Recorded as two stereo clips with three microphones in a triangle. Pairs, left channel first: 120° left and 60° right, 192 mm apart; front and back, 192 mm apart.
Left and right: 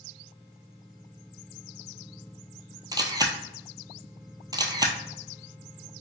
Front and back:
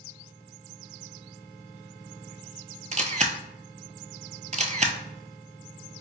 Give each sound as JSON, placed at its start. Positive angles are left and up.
{"t": 2.9, "sound": "a camera shutter", "azimuth_deg": -125, "distance_m": 0.5}